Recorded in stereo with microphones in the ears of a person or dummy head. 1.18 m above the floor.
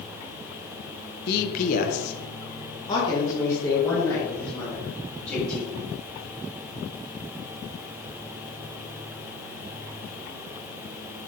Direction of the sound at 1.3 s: 45° left (ahead or behind).